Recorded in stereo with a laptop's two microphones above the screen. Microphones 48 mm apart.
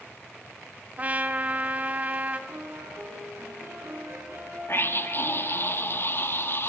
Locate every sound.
1.0 s a trumpet: 30° right (ahead or behind), 1.5 m
2.5 s a piano: 60° right (ahead or behind), 9.5 m
4.7 s a scream: 50° left (ahead or behind), 1.8 m